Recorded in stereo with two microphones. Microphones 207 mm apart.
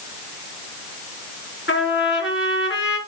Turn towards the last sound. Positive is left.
turn(degrees=75)  # may be behind; listen again after turning